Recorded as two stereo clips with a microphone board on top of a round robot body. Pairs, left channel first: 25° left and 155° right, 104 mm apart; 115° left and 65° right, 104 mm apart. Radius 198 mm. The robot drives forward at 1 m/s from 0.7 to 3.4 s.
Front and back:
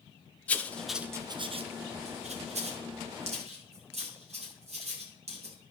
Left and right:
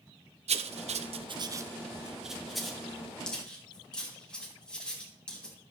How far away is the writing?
About 0.7 m.